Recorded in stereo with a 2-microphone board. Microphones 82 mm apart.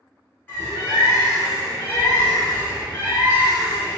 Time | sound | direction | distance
0.5 | a bird | 20° left (ahead or behind) | 1.2 m